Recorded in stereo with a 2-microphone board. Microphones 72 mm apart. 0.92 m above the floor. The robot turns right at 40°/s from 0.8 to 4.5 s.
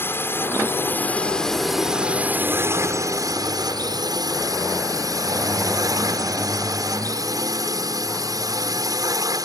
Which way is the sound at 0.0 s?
145° left.